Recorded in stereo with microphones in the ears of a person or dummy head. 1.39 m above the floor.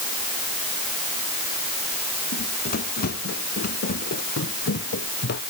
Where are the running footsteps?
50° left (ahead or behind); by 5.4 s 55° left (ahead or behind).